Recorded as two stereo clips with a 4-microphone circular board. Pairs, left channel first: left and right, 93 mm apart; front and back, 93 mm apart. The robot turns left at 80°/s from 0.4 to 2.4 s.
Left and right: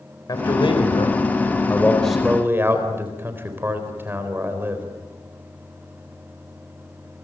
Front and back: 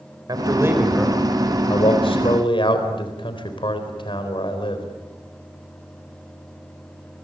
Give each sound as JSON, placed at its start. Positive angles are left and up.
{"t": 0.3, "sound": "a man speaking", "azimuth_deg": 135, "distance_m": 4.0}